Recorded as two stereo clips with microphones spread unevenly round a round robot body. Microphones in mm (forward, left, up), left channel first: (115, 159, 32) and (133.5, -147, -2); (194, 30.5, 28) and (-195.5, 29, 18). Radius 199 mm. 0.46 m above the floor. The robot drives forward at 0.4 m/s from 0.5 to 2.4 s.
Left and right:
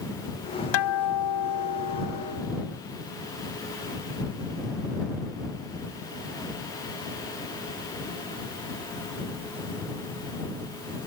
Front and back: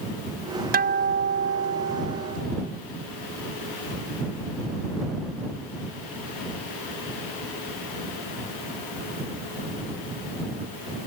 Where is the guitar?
115° left; by 2.7 s 125° left.